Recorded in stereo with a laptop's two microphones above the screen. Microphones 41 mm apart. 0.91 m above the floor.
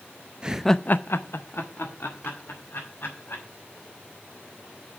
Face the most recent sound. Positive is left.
turn(degrees=60)  # may be behind; listen again after turning